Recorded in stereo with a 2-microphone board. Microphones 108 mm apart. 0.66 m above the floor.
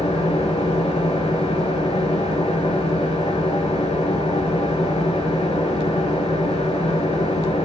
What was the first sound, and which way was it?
An engine running, 65° left (ahead or behind).